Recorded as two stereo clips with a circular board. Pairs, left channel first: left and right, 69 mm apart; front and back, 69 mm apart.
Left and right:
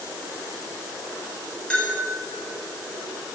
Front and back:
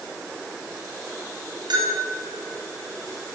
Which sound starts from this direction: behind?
A bell, at 1.7 s.